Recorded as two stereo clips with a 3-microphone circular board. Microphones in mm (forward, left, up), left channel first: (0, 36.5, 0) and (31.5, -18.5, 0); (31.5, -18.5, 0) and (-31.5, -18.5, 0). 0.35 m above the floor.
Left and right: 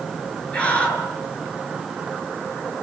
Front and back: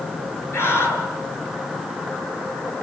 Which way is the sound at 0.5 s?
45° left.